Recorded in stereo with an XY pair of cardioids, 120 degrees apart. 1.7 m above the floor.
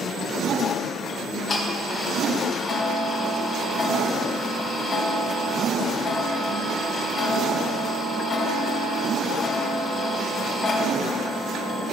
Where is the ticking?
30° left, 3.5 m.